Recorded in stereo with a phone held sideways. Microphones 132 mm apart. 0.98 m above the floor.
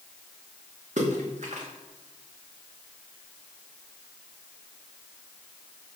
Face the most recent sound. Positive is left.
turn(degrees=-65)  # may be behind; listen again after turning